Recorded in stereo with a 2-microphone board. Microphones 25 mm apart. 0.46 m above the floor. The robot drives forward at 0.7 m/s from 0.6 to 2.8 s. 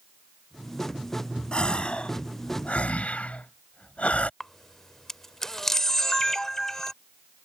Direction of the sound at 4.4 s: 15° left (ahead or behind).